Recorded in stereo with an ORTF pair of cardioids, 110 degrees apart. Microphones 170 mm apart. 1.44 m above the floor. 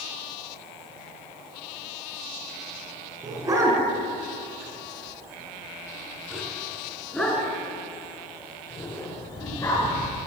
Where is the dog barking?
20° right, 6.5 m; by 10.2 s 20° left, 8 m.